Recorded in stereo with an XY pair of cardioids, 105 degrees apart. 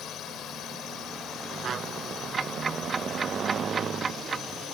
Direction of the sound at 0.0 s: 70° left.